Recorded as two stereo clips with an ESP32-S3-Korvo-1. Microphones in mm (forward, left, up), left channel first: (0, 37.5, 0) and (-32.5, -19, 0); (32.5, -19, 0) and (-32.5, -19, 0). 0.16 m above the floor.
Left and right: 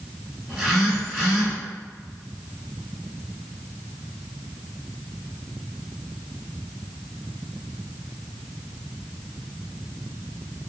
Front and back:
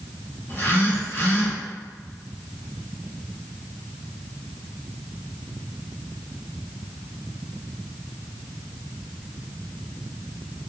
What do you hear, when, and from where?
0.5 s a phone buzzing: 25° right, 1.9 m